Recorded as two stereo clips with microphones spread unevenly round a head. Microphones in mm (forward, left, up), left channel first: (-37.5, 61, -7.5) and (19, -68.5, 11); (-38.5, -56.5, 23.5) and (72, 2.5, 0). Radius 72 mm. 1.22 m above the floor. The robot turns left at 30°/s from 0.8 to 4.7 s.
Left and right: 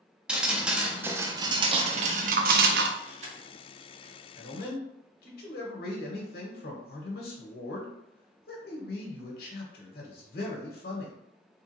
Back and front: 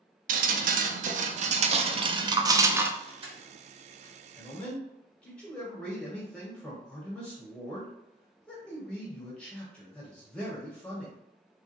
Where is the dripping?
15° left, 0.5 m; by 2.9 s 45° right, 0.5 m.